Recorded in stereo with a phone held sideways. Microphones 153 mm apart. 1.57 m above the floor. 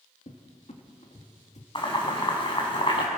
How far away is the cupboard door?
About 2.5 m.